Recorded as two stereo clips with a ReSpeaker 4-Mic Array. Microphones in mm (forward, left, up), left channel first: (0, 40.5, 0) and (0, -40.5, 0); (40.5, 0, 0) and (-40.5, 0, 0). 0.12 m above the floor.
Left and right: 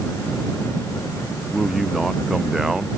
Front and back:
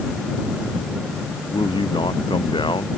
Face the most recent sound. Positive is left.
turn(degrees=-5)